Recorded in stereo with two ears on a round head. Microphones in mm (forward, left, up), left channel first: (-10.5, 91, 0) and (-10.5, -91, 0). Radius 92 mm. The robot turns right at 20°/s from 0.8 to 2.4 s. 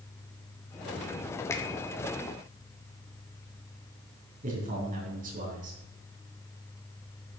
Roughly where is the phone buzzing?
I don't hear a phone buzzing.